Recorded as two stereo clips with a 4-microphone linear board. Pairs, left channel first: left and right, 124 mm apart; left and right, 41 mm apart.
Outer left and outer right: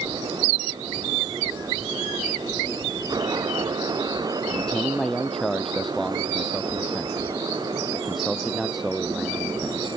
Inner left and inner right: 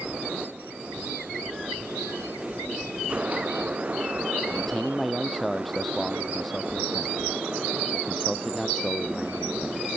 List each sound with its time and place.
4.5 s a man speaking: 5° left (ahead or behind); by 9.9 s 5° right (ahead or behind)